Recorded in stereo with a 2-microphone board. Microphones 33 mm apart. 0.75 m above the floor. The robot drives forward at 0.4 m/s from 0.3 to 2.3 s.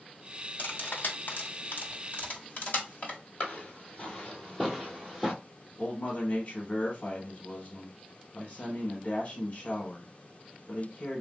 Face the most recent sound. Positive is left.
turn(degrees=40)  # may be behind; listen again after turning